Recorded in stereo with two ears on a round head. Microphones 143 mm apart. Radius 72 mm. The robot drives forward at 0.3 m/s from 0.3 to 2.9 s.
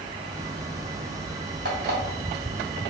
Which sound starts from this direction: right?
An alarm clock, at 1.6 s.